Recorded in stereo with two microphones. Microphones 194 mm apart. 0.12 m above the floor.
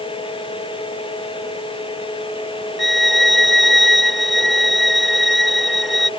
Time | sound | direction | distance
2.8 | a violin | centre (ahead or behind) | ?